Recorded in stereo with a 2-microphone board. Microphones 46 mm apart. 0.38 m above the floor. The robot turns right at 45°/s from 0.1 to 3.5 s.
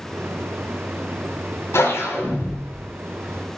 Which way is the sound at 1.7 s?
95° left.